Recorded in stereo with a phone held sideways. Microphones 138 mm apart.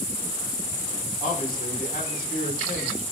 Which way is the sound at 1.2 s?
70° left (ahead or behind).